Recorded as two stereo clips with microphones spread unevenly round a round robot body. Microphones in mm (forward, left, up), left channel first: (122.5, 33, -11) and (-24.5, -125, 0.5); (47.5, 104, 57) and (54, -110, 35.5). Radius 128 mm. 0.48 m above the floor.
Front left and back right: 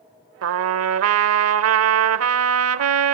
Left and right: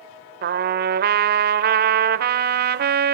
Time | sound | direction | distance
0.4 | a trumpet | 130° right | 1.1 m